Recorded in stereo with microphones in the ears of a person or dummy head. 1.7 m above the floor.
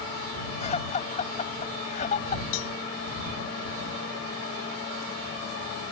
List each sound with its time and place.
0.6 s laughter: 35° left (ahead or behind); by 2.4 s 40° left (ahead or behind)
2.5 s a cowbell: 75° left (ahead or behind)